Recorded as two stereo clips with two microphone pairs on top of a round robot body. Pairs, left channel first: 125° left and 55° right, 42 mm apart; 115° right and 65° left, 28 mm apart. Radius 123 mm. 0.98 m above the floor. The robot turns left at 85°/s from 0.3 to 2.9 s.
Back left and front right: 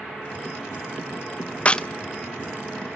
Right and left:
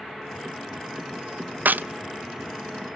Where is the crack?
65° left, 0.5 m; by 1.9 s 45° left, 0.5 m.